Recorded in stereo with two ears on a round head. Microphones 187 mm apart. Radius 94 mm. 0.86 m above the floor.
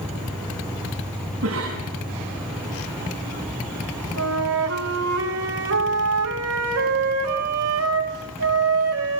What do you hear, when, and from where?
0.0 s an insect: 5° left (ahead or behind), 8 m
1.4 s a cough: 85° right, 7 m
4.2 s a flute: 85° right, 4 m